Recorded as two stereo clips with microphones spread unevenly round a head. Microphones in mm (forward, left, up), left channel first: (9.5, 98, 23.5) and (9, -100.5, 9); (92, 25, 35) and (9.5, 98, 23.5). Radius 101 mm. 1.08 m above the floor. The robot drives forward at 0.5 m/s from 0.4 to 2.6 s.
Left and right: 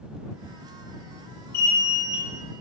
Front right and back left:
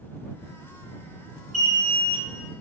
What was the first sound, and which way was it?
An alarm, 135° left.